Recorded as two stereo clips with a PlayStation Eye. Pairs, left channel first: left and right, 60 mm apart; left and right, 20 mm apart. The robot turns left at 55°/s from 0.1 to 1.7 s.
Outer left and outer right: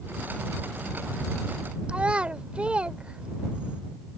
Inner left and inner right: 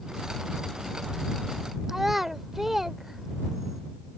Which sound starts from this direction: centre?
A child speaking, at 1.9 s.